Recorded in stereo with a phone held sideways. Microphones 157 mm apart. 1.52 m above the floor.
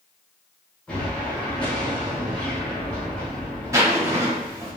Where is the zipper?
20° right (ahead or behind), 0.9 m.